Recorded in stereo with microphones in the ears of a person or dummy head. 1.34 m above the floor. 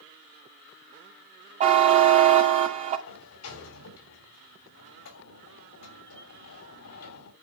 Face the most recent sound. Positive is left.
turn(degrees=80)